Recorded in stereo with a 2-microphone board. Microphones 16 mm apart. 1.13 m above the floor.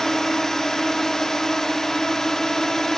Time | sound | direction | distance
0.0 | a drone | 45° left (ahead or behind) | ?